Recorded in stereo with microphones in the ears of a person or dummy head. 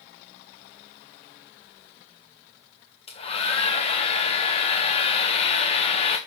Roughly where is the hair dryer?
Left.